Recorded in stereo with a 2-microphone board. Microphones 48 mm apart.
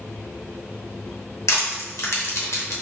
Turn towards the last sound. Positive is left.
turn(degrees=70)  # may be behind; listen again after turning